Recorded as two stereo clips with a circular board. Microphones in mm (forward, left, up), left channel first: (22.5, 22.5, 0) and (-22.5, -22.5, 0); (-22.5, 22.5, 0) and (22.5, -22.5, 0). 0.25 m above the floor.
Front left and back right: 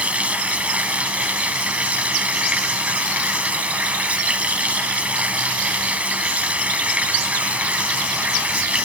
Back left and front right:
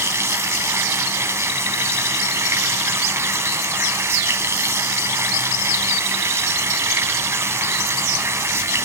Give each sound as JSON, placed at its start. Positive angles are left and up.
{"t": 0.0, "sound": "running water", "azimuth_deg": -70, "distance_m": 1.1}